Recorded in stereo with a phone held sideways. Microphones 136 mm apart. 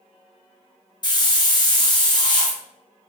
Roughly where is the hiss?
Left.